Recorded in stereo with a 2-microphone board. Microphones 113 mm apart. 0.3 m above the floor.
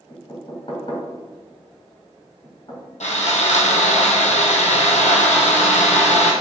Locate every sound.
0.1 s knocking: 50° left (ahead or behind), 2.5 m
3.0 s sawing: 80° left, 1.8 m